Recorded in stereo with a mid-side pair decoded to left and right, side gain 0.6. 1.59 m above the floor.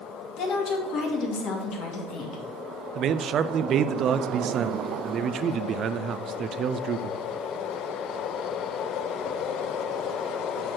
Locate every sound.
0.4 s a woman speaking: 60° left, 2.5 m
3.0 s a man speaking: 50° right, 0.5 m